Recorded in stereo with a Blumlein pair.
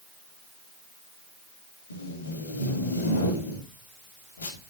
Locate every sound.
1.9 s tape being pulled: 70° left, 3 m